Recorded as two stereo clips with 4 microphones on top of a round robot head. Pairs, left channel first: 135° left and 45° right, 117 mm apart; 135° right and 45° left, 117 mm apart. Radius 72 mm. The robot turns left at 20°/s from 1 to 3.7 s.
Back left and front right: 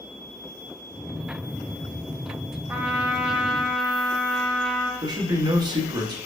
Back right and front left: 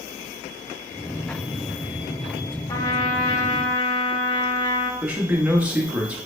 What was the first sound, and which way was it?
A trumpet, 110° right.